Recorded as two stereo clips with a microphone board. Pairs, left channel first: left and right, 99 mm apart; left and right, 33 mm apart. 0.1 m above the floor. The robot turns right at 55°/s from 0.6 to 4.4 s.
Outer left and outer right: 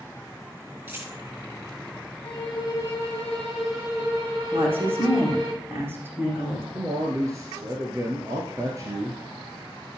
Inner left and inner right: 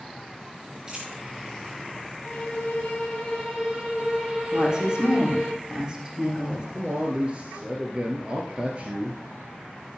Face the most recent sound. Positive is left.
turn(degrees=-35)  # may be behind; listen again after turning